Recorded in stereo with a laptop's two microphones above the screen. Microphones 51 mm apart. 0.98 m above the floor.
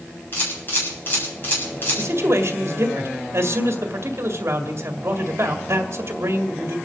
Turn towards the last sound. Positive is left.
turn(degrees=-55)  # may be behind; listen again after turning